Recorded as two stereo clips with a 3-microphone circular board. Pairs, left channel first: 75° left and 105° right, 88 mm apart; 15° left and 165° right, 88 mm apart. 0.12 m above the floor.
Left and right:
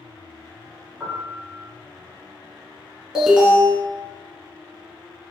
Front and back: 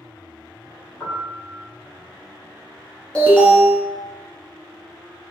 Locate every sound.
1.0 s a piano: 35° right, 1.3 m
3.1 s an alarm: 35° right, 1.0 m